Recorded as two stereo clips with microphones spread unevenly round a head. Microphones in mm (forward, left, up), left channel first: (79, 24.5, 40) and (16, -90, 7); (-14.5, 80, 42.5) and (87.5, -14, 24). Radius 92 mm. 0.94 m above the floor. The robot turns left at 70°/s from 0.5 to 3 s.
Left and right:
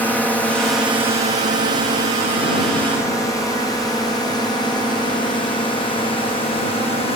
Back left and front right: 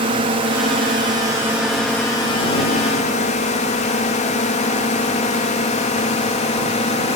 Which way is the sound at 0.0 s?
25° right.